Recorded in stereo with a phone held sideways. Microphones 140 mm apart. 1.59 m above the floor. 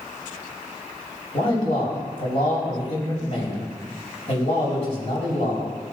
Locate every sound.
1.3 s a man speaking: 50° left (ahead or behind), 3.5 m